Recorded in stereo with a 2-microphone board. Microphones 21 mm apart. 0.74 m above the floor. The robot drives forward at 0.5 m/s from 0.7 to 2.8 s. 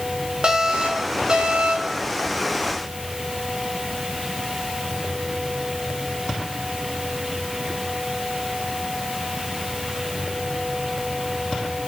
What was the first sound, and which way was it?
An alarm, 50° right (ahead or behind).